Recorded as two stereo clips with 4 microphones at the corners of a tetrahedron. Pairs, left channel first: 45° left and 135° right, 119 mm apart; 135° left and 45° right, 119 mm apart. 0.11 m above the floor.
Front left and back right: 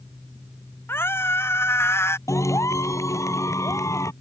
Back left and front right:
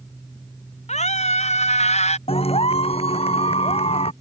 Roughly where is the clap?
Left.